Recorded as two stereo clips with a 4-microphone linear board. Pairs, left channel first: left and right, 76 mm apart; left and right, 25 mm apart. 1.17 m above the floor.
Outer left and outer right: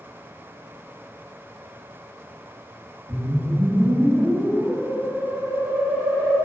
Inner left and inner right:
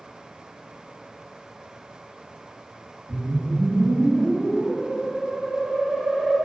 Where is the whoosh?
75° right (ahead or behind), 1.2 m.